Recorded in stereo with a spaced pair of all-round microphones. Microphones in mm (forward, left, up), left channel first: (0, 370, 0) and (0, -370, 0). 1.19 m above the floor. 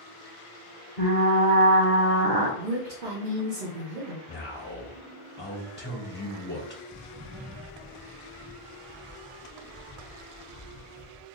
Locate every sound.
1.0 s frying: 45° right (ahead or behind), 1.7 m
2.6 s a woman speaking: 85° right, 1.0 m
4.3 s a man speaking: 15° left (ahead or behind), 0.6 m
6.9 s footsteps: 25° right (ahead or behind), 1.9 m; by 11.3 s 35° left (ahead or behind), 1.5 m